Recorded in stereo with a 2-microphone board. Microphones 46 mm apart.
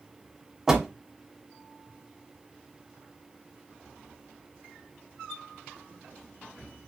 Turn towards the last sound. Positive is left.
turn(degrees=-15)  # may be behind; listen again after turning